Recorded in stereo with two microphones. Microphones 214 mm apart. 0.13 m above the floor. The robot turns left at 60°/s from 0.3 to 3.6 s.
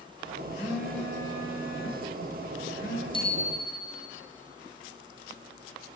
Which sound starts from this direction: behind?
A phone buzzing, at 0.6 s.